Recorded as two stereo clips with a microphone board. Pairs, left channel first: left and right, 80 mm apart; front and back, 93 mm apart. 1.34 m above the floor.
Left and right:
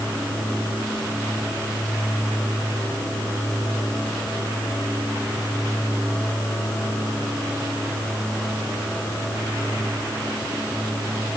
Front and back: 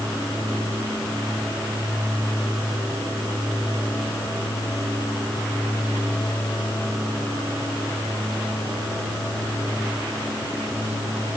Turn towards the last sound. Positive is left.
No sound to turn to.